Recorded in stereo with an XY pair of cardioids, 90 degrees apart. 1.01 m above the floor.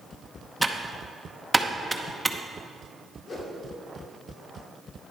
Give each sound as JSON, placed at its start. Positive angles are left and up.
{"t": 0.6, "sound": "typing on a keyboard", "azimuth_deg": -5, "distance_m": 0.8}
{"t": 3.3, "sound": "a whoosh", "azimuth_deg": 55, "distance_m": 2.5}